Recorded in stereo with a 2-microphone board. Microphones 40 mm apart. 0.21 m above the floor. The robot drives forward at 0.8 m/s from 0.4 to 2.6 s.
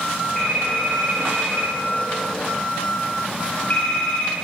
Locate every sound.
0.3 s a phone ringing: 20° left (ahead or behind), 5 m; by 4.3 s 30° left (ahead or behind), 3.5 m